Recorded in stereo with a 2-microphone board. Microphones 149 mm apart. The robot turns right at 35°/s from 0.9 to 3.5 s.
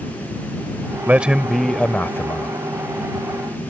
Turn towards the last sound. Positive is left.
turn(degrees=70)